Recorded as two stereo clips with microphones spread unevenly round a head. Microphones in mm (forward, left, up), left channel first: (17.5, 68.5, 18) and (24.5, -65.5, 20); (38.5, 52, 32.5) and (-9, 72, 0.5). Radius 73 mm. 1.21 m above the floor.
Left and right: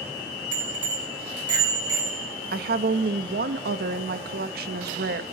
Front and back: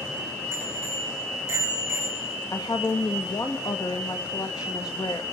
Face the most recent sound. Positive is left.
turn(degrees=-85)